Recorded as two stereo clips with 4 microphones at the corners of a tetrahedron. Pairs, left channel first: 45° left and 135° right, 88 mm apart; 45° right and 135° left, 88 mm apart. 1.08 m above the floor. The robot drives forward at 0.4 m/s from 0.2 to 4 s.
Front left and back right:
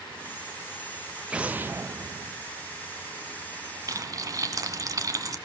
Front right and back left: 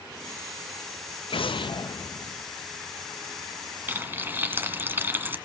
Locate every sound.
1.3 s an explosion: 55° right, 0.6 m; by 2.4 s 105° right, 0.5 m
3.9 s frying: 165° right, 1.3 m